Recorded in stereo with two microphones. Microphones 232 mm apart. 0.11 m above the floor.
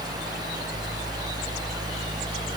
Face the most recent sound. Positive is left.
No sound to turn to.